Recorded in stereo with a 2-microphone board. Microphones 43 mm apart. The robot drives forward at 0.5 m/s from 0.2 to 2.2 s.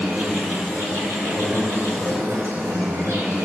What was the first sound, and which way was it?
An insect, 50° right (ahead or behind).